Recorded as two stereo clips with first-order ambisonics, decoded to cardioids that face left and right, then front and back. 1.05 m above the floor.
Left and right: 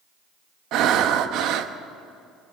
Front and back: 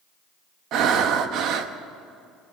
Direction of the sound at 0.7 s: 135° right.